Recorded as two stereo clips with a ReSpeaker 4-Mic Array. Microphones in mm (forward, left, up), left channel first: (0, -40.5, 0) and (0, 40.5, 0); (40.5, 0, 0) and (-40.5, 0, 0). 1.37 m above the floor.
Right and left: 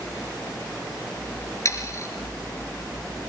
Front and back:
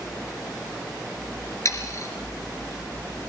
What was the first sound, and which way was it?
Sawing, 45° right.